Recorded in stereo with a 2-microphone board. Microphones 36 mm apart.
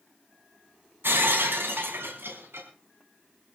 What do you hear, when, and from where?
1.0 s breaking glass: 85° right, 4.5 m